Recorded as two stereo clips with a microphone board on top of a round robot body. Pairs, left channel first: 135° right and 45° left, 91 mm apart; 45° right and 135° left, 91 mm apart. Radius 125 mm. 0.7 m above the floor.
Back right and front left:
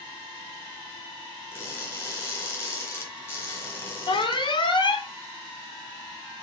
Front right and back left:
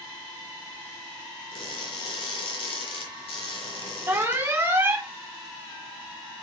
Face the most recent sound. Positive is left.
turn(degrees=-155)